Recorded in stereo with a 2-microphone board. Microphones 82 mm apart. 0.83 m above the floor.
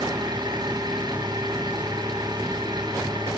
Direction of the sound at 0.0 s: 60° right (ahead or behind).